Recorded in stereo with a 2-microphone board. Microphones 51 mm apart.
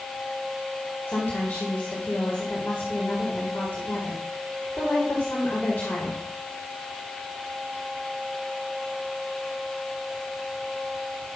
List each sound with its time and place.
1.1 s a woman speaking: 50° left (ahead or behind), 2.0 m